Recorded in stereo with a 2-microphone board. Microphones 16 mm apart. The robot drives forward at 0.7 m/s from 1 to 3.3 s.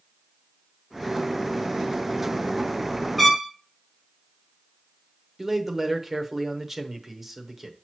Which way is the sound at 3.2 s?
5° right (ahead or behind).